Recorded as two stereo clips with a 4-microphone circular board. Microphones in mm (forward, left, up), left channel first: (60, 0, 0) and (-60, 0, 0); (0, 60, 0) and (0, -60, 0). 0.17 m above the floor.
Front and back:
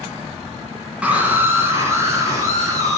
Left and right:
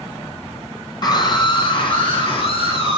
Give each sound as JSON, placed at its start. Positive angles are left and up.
{"t": 1.0, "sound": "a scream", "azimuth_deg": 110, "distance_m": 1.8}